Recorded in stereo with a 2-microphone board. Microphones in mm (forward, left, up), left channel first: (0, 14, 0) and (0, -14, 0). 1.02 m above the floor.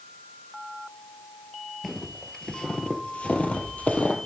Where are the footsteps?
5° left (ahead or behind), 1.2 m; by 4.2 s 55° left (ahead or behind), 1.8 m.